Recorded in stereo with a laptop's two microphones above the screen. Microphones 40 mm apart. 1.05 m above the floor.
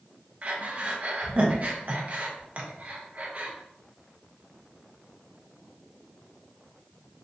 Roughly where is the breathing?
Right.